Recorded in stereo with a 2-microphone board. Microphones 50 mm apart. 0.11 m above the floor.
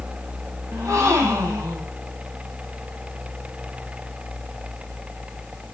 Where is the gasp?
80° right, 4.5 m.